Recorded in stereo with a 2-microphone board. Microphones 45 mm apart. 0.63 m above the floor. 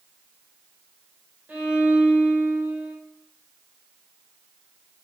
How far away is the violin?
About 1.3 m.